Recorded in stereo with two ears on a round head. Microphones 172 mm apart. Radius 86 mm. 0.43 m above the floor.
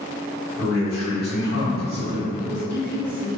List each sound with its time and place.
0.6 s a man speaking: 50° left (ahead or behind), 1.4 m
2.4 s a woman speaking: 15° left (ahead or behind), 1.4 m